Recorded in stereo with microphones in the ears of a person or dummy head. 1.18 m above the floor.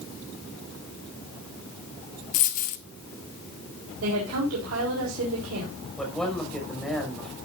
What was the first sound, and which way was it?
A dropped coin, 45° left (ahead or behind).